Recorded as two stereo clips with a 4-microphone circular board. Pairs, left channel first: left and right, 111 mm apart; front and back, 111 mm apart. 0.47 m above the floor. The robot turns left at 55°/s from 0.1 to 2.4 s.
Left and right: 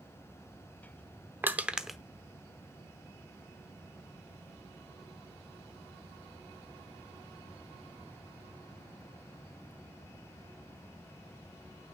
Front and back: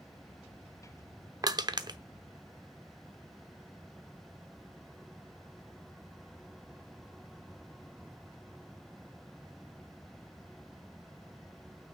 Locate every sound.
1.4 s crushing: 150° right, 0.8 m; by 2.0 s straight behind, 0.8 m